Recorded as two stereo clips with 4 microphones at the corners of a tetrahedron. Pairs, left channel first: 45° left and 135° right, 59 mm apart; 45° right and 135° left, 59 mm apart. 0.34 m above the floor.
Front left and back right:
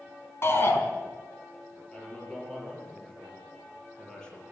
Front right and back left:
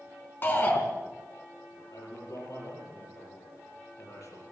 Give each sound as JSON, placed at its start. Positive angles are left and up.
{"t": 0.4, "sound": "a shout", "azimuth_deg": 5, "distance_m": 3.5}
{"t": 1.9, "sound": "a man speaking", "azimuth_deg": -30, "distance_m": 8.0}